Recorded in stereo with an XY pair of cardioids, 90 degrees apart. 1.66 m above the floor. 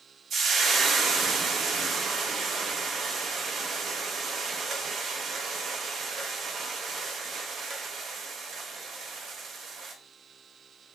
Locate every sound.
0.3 s frying: 65° right, 0.7 m